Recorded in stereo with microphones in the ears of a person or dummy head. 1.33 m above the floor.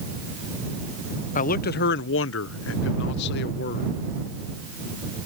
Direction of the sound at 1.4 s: 40° left (ahead or behind).